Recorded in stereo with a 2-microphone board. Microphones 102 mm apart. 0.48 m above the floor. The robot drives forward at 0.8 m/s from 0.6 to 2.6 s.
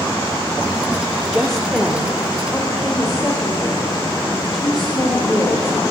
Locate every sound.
1.3 s a woman speaking: 5° left (ahead or behind), 0.8 m; by 5.8 s centre (ahead or behind), 1.6 m